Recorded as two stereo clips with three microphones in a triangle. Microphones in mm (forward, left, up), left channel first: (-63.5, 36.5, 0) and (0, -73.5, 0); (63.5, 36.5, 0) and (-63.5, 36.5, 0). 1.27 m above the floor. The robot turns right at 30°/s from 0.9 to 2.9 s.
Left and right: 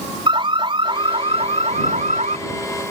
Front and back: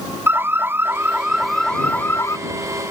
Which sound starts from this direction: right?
An alarm, at 0.3 s.